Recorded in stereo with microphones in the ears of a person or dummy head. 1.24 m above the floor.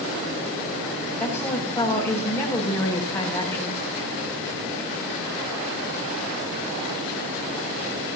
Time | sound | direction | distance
1.2 | a woman speaking | 15° left (ahead or behind) | 8 m